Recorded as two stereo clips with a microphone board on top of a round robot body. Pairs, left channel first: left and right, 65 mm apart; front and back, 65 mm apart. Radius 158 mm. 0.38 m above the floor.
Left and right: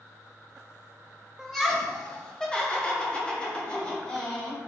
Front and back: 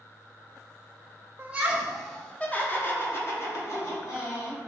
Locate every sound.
1.4 s laughter: 175° left, 1.0 m; by 4.6 s 20° left, 2 m